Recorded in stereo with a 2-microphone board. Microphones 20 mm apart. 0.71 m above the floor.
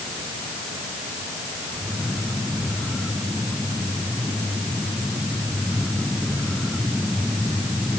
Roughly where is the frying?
I don't hear frying.